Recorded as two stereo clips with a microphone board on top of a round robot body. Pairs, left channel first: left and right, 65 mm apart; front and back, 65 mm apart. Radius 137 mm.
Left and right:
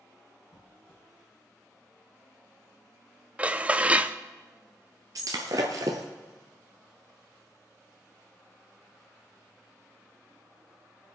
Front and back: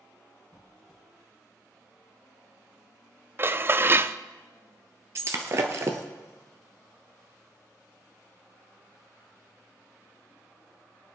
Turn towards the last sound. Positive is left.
turn(degrees=-135)